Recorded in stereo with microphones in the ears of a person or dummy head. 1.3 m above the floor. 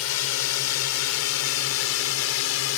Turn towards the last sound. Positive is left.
turn(degrees=70)  # may be behind; listen again after turning